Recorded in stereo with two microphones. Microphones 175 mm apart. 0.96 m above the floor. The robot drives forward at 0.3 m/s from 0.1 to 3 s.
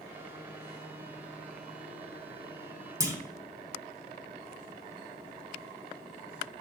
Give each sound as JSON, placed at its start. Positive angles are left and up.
{"t": 3.0, "sound": "a clunk", "side_deg": -20, "distance_m": 0.9}